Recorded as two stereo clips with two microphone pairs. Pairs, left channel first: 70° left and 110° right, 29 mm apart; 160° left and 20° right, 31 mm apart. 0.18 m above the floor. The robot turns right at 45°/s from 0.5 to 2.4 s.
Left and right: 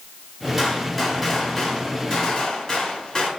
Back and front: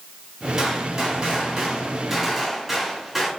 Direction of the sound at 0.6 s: 35° right.